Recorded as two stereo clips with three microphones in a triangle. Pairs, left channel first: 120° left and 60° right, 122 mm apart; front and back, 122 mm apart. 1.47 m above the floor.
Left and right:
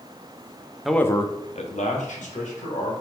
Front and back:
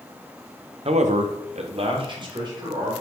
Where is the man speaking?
145° right, 0.5 m; by 2.9 s 120° left, 1.8 m.